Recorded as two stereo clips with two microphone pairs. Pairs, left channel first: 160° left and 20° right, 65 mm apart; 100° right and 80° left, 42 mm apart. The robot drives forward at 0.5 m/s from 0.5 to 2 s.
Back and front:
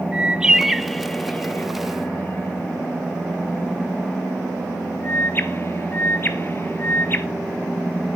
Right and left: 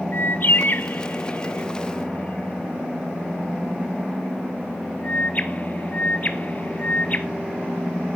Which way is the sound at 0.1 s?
90° right.